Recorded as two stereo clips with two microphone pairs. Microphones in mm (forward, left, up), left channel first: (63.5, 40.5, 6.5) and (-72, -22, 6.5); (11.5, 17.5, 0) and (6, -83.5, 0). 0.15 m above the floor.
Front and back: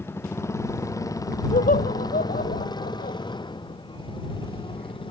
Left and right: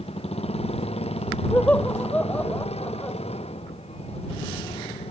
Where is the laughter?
10° left.